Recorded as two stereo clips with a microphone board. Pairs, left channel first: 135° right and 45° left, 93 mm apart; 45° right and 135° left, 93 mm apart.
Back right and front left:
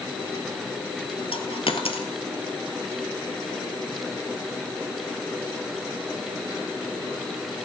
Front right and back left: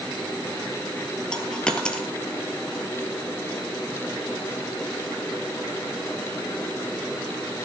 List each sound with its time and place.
1.3 s a dropped coin: 125° right, 1.4 m